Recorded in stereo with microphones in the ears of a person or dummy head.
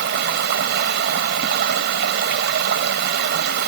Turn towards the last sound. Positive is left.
turn(degrees=-70)  # may be behind; listen again after turning